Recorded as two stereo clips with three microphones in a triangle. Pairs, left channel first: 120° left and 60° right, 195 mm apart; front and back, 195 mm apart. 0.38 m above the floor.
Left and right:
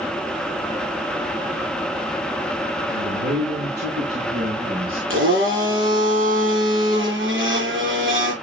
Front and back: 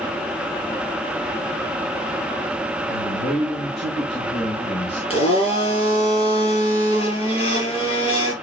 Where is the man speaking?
40° right, 3.5 m; by 5.0 s 20° right, 3 m.